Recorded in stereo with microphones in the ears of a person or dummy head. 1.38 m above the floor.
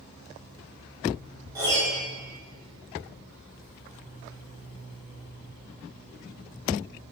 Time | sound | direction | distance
1.6 | a piano | 20° right (ahead or behind) | 3 m